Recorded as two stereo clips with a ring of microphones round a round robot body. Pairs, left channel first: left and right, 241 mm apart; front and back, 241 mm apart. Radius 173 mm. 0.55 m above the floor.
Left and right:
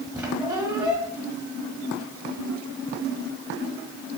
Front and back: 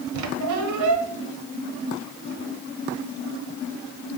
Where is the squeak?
175° right, 1.2 m.